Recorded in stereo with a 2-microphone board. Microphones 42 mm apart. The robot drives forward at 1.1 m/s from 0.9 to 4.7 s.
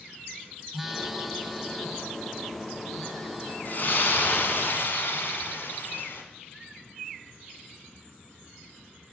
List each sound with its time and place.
0.7 s a phone buzzing: 5° right (ahead or behind), 0.6 m; by 3.5 s centre (ahead or behind), 3.5 m
3.6 s a splash: 50° left (ahead or behind), 2 m; by 6.2 s 60° left (ahead or behind), 1.8 m